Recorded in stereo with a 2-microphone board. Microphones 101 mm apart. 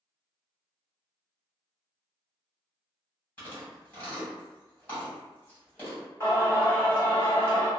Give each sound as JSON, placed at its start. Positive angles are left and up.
{"t": 3.4, "sound": "chewing", "side_deg": 20, "distance_m": 1.8}
{"t": 6.2, "sound": "singing", "side_deg": 25, "distance_m": 1.5}